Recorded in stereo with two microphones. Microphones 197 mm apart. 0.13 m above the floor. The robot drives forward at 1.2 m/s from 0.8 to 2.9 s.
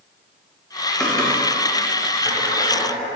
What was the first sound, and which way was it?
Typing on a keyboard, 5° left (ahead or behind).